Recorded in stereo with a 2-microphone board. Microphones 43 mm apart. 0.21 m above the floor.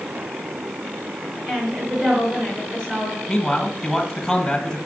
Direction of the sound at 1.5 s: 30° right (ahead or behind).